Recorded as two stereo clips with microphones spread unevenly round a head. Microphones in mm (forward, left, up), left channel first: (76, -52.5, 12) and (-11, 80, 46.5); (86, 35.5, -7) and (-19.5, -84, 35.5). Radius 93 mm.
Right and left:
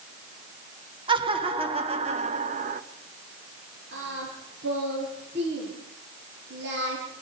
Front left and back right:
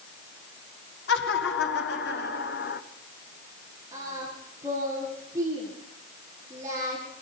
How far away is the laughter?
About 2.5 m.